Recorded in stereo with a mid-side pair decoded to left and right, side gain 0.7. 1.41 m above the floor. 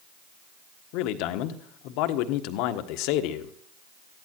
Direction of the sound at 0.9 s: 70° left.